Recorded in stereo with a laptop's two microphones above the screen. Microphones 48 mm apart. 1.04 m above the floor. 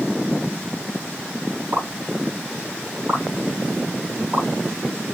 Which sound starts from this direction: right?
A pop, at 1.7 s.